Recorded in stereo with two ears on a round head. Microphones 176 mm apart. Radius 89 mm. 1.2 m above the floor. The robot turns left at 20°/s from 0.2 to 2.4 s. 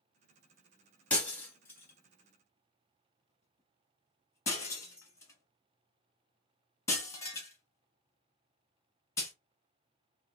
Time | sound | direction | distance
1.1 | breaking glass | 10° left (ahead or behind) | 1.1 m